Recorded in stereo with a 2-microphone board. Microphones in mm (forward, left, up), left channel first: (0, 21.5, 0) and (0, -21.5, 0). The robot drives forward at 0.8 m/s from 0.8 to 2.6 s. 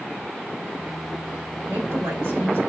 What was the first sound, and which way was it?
A woman speaking, 85° right.